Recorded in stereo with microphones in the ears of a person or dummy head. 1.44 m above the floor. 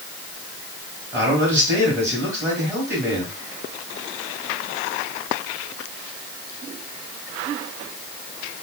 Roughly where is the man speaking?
Centre.